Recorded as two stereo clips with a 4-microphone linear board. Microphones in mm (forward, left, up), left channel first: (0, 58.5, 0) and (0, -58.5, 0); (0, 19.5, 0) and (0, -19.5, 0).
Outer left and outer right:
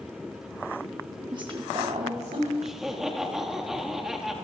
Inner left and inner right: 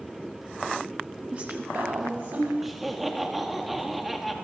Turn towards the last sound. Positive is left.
turn(degrees=-5)  # may be behind; listen again after turning